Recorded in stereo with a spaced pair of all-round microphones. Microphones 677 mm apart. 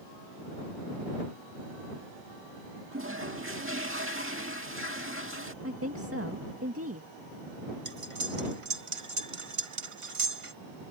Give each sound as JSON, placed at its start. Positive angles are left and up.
{"t": 2.9, "sound": "a toilet flushing", "side_deg": -20}
{"t": 5.6, "sound": "a woman speaking", "side_deg": -20}
{"t": 7.8, "sound": "cutlery clinking", "side_deg": -50}